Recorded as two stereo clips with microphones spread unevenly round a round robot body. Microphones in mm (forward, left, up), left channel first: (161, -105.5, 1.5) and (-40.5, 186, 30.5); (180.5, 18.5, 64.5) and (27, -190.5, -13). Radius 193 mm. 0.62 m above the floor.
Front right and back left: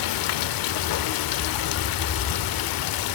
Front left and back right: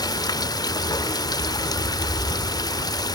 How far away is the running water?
About 0.7 m.